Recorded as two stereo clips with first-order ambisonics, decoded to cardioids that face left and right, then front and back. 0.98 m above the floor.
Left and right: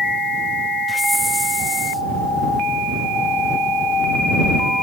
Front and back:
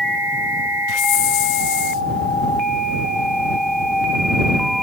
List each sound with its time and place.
0.9 s a hiss: 5° right